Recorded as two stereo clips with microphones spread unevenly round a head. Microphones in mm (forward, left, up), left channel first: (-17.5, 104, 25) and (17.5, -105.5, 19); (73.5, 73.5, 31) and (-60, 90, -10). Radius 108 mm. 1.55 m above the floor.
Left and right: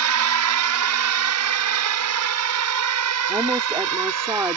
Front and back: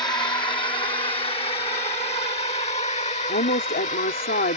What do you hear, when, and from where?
0.0 s a drone: 80° right; by 4.6 s 70° right
3.3 s a woman speaking: straight ahead